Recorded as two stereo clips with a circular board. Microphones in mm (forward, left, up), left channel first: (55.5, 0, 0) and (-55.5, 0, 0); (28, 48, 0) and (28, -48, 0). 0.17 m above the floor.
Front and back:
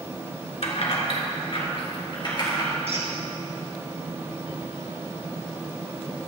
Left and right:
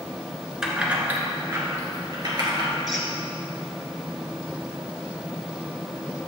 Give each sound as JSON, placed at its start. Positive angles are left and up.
{"t": 0.6, "sound": "keys jangling", "azimuth_deg": -5, "distance_m": 1.3}
{"t": 2.9, "sound": "a squeak", "azimuth_deg": 180, "distance_m": 1.8}